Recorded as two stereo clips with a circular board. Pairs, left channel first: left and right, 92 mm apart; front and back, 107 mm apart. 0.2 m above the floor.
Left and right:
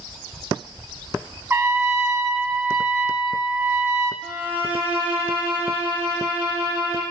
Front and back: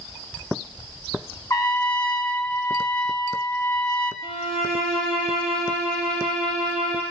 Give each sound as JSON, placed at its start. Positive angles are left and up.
{"t": 1.5, "sound": "a trumpet", "azimuth_deg": -40, "distance_m": 0.8}
{"t": 4.2, "sound": "a violin", "azimuth_deg": -15, "distance_m": 3.5}